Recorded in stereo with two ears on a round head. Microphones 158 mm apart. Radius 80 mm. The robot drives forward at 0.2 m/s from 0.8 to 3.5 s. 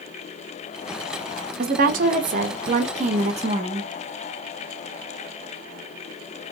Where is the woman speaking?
55° right (ahead or behind), 0.7 m; by 3.9 s 40° right (ahead or behind), 0.9 m.